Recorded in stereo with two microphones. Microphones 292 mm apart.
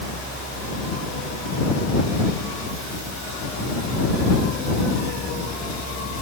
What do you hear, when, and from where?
Only background noise.